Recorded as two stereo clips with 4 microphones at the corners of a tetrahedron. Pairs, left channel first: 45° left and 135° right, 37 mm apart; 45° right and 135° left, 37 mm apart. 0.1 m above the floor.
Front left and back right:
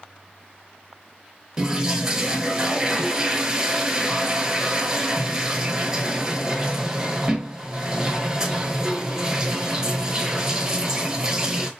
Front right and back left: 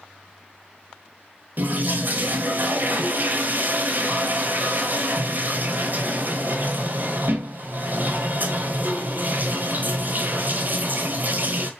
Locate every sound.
1.6 s a toilet flushing: 155° left, 0.8 m